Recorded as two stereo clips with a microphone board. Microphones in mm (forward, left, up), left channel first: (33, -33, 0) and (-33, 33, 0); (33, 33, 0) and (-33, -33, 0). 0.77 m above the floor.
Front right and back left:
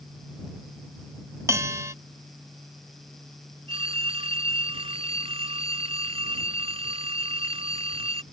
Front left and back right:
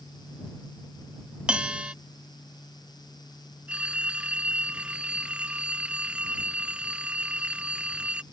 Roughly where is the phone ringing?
Behind left.